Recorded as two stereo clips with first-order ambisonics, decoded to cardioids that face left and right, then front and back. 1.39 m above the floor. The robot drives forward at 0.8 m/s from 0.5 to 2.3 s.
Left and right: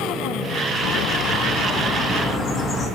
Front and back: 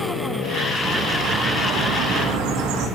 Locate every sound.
0.8 s a bird: 105° left, 0.7 m; by 2.9 s 155° left, 1.5 m